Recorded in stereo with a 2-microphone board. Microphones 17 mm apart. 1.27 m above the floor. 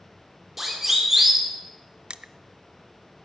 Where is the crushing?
65° right (ahead or behind), 0.6 m.